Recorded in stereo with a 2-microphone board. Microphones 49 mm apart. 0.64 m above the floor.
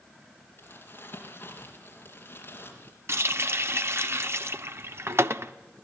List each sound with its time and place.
0.6 s crumpling: 45° left (ahead or behind), 4.5 m
3.1 s a running tap: 60° right (ahead or behind), 0.9 m